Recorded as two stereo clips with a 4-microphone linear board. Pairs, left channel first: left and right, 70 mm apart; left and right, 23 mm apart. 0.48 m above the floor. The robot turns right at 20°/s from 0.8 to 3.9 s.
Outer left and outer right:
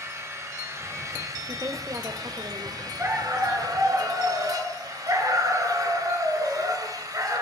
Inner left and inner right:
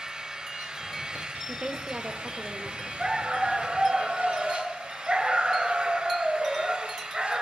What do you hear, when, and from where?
0.0 s an engine running: 130° right, 2 m; by 7.4 s 70° right, 2 m
1.5 s a woman speaking: 50° right (ahead or behind), 1.7 m; by 2.9 s 65° right (ahead or behind), 1.7 m
3.0 s a dog barking: 35° right (ahead or behind), 2.5 m; by 7.4 s 55° right (ahead or behind), 2.5 m